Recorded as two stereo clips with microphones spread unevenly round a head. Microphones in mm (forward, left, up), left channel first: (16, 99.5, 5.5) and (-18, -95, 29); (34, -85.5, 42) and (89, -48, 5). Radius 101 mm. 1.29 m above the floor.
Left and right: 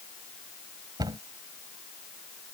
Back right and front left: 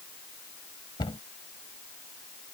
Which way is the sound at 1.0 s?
170° right.